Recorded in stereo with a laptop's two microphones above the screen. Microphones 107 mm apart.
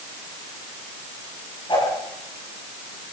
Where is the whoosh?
45° left (ahead or behind), 7 m.